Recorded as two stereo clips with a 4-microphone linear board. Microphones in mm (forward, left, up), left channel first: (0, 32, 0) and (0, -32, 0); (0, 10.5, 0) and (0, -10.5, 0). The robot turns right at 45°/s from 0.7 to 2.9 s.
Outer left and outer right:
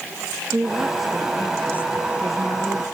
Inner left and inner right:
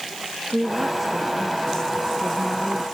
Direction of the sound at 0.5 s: 15° right.